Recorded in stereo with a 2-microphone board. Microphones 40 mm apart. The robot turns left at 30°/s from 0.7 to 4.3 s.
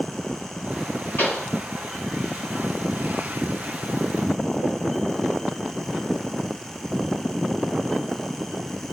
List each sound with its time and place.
1.2 s a pop: 70° left (ahead or behind), 2 m